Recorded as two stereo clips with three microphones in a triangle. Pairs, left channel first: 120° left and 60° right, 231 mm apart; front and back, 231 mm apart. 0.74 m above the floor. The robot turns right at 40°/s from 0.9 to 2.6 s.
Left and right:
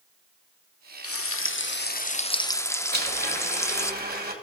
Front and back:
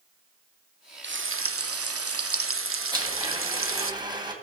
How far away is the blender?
About 2 m.